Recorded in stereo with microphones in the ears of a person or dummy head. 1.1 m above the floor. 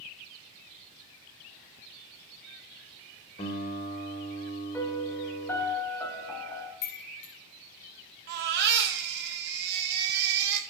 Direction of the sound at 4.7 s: 15° left (ahead or behind).